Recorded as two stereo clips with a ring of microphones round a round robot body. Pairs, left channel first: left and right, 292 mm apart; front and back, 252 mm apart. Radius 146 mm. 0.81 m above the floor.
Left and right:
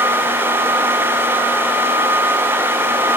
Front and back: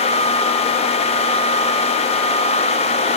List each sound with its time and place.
Only background noise.